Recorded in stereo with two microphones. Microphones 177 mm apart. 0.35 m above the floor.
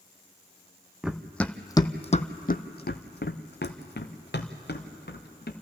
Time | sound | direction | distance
1.0 | running footsteps | 5° right (ahead or behind) | 0.9 m